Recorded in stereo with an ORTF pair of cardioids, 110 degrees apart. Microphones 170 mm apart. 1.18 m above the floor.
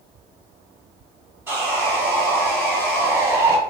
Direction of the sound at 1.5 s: 15° right.